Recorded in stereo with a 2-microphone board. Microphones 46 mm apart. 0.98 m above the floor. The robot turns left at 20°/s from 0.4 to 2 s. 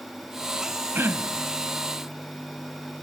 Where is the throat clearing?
55° right (ahead or behind); by 1.5 s 45° right (ahead or behind).